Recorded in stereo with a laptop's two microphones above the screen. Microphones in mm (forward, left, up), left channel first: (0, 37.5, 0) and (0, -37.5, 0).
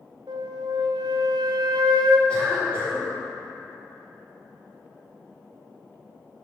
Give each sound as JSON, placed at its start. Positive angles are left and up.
{"t": 0.3, "sound": "a flute", "side_deg": -80, "distance_m": 0.6}
{"t": 2.3, "sound": "a cough", "side_deg": 15, "distance_m": 2.5}